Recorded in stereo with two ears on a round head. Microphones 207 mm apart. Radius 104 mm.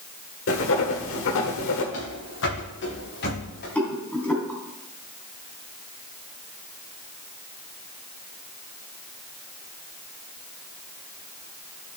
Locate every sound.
0.5 s writing: 65° left (ahead or behind), 1.4 m
1.9 s running footsteps: 60° left (ahead or behind), 5.5 m; by 3.6 s 45° left (ahead or behind), 6.5 m
3.8 s a rattle: 5° left (ahead or behind), 2.5 m